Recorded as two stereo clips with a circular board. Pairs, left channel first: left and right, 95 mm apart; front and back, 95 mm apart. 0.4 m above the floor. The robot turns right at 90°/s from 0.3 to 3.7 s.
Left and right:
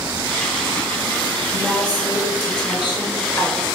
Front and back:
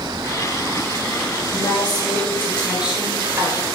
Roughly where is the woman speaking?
Ahead.